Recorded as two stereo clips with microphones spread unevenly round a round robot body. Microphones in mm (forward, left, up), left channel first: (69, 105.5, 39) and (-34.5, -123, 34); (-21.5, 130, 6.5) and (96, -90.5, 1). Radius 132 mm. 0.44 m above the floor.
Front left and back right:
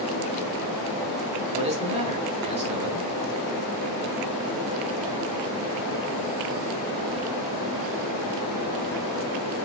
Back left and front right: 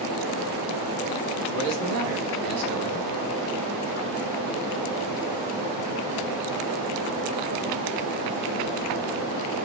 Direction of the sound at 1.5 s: 50° right.